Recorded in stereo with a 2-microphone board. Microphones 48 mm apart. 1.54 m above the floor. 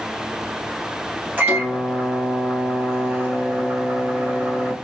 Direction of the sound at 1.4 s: 35° right (ahead or behind).